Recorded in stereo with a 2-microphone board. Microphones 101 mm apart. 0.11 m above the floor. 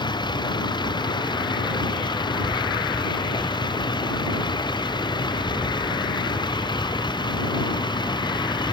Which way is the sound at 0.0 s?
50° left (ahead or behind).